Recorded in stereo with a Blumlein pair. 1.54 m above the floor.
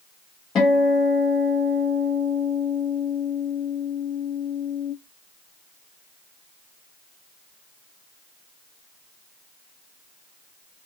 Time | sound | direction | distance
0.6 | a guitar | 25° left | 1.6 m